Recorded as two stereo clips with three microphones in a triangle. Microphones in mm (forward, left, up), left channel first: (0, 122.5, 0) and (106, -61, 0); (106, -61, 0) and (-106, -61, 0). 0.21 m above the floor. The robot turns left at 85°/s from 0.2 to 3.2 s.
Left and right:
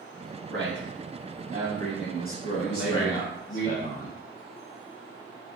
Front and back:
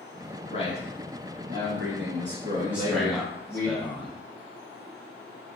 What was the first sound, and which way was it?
A man speaking, 50° right.